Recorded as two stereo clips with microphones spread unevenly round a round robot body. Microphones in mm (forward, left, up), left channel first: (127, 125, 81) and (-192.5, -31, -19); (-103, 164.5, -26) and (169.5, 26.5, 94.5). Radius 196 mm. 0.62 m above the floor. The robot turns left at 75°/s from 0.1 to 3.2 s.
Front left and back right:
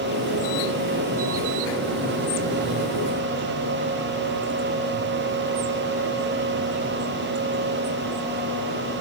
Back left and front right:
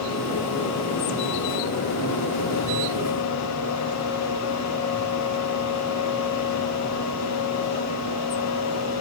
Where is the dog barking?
No dog barking in this recording.